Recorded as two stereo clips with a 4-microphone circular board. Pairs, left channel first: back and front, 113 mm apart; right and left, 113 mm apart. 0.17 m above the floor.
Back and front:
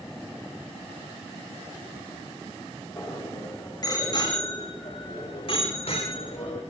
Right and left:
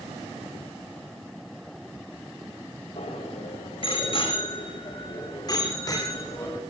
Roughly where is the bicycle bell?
Behind right.